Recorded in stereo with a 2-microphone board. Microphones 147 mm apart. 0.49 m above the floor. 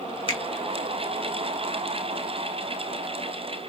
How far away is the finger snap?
About 1.3 m.